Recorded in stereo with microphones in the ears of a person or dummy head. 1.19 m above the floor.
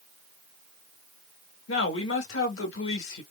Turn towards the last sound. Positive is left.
turn(degrees=65)  # may be behind; listen again after turning